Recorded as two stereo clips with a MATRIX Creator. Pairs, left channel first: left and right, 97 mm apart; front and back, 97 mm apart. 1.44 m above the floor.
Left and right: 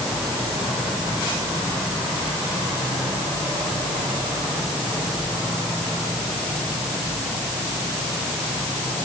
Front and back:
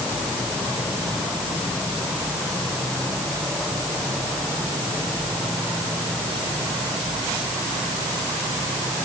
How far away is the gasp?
I don't hear a gasp.